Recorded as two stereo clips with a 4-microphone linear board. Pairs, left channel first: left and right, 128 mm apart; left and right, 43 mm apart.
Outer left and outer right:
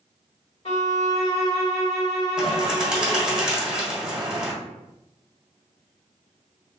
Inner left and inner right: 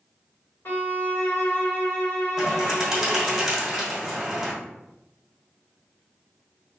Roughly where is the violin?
Left.